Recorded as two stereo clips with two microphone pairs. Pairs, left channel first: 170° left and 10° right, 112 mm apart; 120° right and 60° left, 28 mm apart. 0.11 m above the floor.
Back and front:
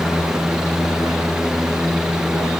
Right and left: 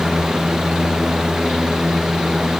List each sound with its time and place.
Only background noise.